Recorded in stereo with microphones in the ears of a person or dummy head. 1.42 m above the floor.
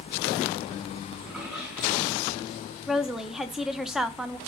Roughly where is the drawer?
Centre.